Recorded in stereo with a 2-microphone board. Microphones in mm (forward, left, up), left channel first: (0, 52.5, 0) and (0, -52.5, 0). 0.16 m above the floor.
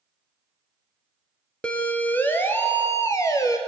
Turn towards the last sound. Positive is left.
turn(degrees=30)  # may be behind; listen again after turning